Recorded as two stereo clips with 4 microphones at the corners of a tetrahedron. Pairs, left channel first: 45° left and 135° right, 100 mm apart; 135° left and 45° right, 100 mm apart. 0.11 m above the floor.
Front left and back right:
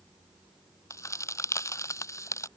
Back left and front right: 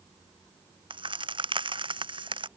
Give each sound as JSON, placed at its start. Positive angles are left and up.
{"t": 0.9, "sound": "a crack", "azimuth_deg": -15}